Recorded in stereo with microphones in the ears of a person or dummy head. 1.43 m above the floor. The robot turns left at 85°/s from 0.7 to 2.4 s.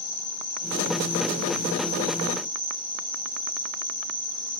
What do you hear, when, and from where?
0.0 s an insect: 125° left, 1.3 m; by 4.6 s 20° right, 1.3 m